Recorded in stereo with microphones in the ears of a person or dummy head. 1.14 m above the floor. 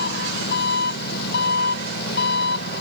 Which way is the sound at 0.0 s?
55° left (ahead or behind).